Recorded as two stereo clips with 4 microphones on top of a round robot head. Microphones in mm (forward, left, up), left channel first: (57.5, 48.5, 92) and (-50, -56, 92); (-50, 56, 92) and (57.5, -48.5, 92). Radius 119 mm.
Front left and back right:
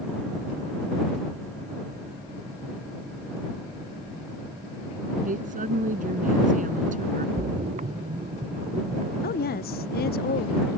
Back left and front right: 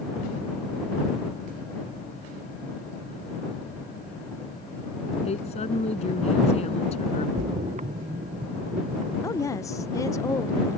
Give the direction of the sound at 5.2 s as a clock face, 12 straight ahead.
6 o'clock.